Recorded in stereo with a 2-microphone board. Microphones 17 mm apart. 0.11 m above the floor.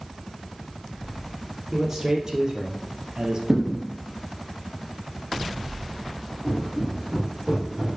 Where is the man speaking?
25° right (ahead or behind), 2.5 m; by 3.4 s 50° right (ahead or behind), 2 m.